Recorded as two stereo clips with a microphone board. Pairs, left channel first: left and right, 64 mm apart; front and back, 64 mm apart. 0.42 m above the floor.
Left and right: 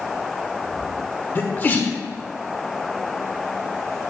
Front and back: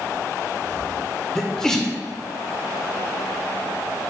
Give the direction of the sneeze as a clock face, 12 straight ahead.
10 o'clock.